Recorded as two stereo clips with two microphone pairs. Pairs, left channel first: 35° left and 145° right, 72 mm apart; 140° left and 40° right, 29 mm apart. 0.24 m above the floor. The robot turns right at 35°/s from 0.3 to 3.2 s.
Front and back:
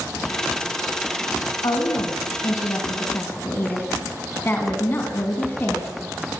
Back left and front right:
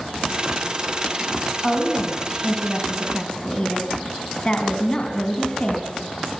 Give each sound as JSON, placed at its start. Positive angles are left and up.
{"t": 1.6, "sound": "a woman speaking", "azimuth_deg": 30, "distance_m": 2.5}